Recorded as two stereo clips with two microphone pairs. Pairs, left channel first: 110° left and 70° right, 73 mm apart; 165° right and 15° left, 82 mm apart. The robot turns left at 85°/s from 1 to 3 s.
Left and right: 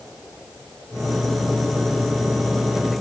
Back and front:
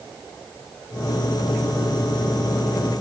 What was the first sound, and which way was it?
Only background noise.